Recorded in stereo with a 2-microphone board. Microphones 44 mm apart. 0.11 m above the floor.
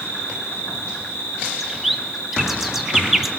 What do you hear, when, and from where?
0.0 s an insect: 70° left (ahead or behind), 2.5 m
1.6 s a bird: centre (ahead or behind), 0.8 m